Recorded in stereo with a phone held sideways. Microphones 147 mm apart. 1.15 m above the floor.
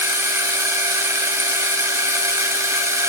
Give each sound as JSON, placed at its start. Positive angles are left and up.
{"t": 0.0, "sound": "a machine running", "side_deg": -20, "distance_m": 0.8}